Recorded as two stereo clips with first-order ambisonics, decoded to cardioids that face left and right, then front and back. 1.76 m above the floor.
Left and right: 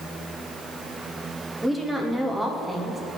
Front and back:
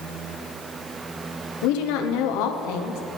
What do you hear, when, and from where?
1.6 s a woman speaking: 5° right, 0.9 m